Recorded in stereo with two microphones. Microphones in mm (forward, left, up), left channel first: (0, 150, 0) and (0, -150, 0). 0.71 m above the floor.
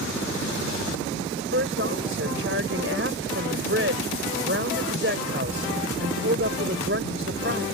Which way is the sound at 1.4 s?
40° right (ahead or behind).